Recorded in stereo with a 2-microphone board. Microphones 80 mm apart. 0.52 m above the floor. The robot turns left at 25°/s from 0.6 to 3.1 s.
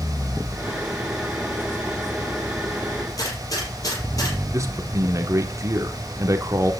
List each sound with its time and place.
3.2 s a gunshot: 45° left (ahead or behind), 5 m
4.5 s a man speaking: 40° right (ahead or behind), 1.5 m